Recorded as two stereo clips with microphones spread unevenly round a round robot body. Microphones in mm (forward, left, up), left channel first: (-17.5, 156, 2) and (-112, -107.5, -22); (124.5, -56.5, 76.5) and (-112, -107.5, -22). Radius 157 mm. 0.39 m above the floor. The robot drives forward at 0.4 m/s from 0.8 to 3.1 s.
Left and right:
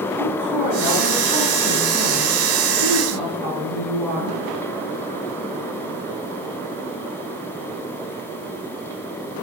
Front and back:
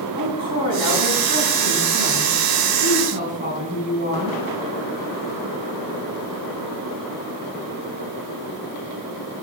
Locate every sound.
0.1 s a woman speaking: 105° right, 4.5 m; by 4.4 s 120° right, 4.5 m